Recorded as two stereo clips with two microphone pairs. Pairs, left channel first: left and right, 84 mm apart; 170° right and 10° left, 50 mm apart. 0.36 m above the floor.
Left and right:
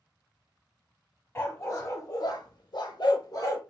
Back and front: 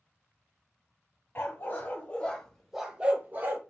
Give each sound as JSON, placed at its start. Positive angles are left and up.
{"t": 1.4, "sound": "a dog barking", "azimuth_deg": 150, "distance_m": 1.1}